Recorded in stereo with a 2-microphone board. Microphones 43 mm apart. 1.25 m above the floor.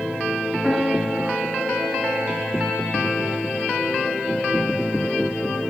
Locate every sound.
0.6 s a piano: 10° right (ahead or behind), 2.5 m